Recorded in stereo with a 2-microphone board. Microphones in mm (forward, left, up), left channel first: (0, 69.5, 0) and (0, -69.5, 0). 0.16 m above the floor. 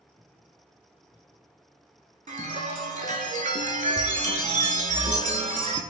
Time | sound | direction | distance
2.3 | a chime | 60° right (ahead or behind) | 0.5 m